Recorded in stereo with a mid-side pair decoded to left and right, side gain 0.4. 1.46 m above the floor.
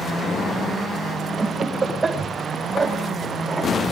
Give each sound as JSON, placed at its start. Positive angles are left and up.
{"t": 1.4, "sound": "laughter", "azimuth_deg": -30, "distance_m": 8.5}